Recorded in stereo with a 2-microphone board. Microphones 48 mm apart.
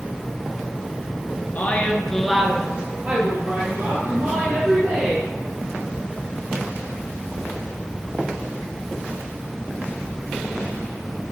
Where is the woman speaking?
40° left (ahead or behind), 1.4 m; by 5.3 s 60° right (ahead or behind), 4 m.